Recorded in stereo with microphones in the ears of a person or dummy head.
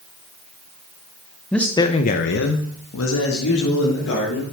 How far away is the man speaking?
About 1.2 m.